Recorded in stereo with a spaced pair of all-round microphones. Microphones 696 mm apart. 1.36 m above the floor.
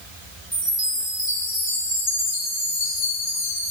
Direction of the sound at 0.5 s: 45° left (ahead or behind).